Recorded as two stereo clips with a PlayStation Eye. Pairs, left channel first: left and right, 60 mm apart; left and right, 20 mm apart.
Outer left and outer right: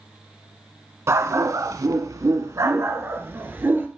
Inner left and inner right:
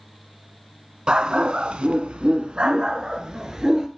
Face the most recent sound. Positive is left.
turn(degrees=-35)  # may be behind; listen again after turning